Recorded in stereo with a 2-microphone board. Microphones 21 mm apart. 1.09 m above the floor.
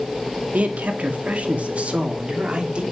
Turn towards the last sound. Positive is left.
turn(degrees=-50)  # may be behind; listen again after turning